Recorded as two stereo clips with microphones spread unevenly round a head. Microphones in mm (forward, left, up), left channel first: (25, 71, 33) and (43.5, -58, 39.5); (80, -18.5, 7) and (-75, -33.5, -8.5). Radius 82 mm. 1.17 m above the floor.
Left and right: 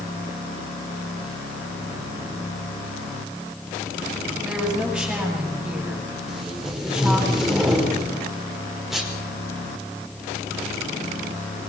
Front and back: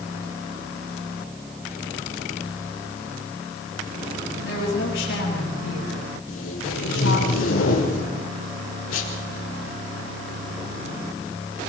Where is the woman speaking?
Straight ahead, 9 m.